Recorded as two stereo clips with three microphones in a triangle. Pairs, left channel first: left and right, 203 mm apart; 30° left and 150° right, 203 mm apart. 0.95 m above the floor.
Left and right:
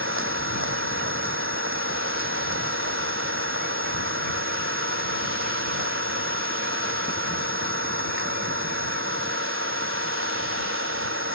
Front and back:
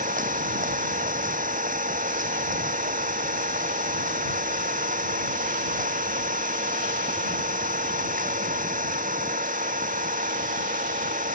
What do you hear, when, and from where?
0.0 s an engine running: 100° right